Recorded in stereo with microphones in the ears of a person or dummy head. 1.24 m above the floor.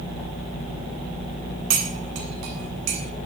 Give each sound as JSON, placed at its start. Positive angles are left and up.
{"t": 1.7, "sound": "cutlery clinking", "side_deg": -80, "distance_m": 3.0}